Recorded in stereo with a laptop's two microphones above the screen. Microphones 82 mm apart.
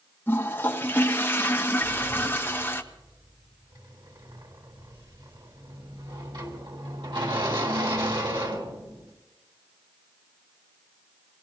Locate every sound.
0.3 s a toilet flushing: 25° left (ahead or behind), 1.2 m
1.8 s a sliding door: 75° right (ahead or behind), 4 m